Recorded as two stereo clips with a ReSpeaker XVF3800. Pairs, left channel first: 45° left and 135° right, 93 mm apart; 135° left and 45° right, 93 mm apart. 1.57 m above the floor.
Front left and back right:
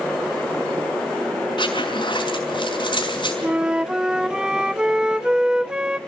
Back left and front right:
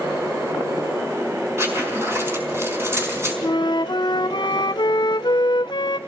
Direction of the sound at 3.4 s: 145° left.